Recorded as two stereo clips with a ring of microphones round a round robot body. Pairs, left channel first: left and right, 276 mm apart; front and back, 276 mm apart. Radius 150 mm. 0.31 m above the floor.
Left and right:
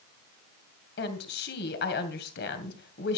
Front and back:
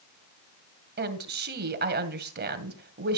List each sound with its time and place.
1.0 s a woman speaking: 135° left, 2 m